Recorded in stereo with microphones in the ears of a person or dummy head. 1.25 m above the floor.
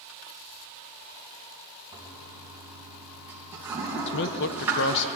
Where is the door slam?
No door slam in this recording.